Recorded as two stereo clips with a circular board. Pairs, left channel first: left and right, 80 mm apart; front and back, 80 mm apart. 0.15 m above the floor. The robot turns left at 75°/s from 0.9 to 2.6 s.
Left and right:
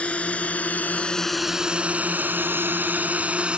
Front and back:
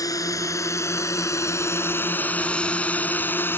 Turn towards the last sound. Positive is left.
turn(degrees=-25)